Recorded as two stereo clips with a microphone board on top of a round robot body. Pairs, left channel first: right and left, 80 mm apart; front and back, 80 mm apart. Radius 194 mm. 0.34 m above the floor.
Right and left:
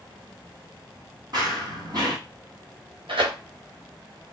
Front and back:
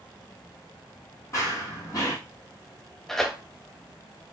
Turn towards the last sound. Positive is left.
turn(degrees=85)